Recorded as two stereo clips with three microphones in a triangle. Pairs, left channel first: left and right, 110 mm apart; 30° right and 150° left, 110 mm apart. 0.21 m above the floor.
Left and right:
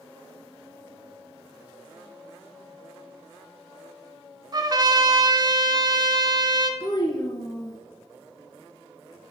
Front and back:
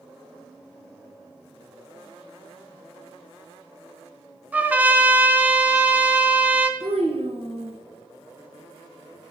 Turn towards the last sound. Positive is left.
turn(degrees=135)